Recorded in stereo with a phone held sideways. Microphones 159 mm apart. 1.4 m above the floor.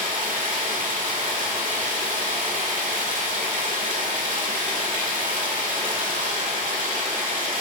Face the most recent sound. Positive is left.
turn(degrees=-60)  # may be behind; listen again after turning